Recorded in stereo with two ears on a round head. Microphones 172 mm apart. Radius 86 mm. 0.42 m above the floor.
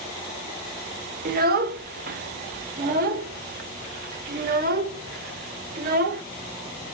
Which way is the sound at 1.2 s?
50° right (ahead or behind).